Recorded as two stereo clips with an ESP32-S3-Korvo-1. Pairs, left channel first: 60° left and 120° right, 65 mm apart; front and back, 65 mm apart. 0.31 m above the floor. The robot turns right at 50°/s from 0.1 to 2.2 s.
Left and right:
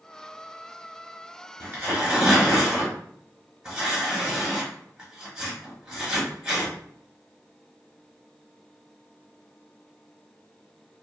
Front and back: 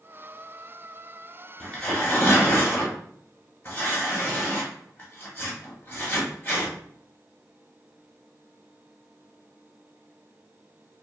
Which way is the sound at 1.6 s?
75° right.